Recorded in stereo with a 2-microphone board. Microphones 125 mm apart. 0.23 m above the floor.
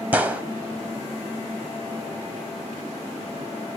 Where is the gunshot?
15° right (ahead or behind), 0.6 m.